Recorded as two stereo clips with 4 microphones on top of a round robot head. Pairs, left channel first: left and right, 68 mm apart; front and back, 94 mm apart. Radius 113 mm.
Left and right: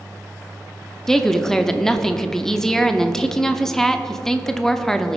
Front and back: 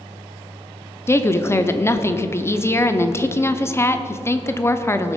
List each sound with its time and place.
1.1 s a woman speaking: 15° left, 0.9 m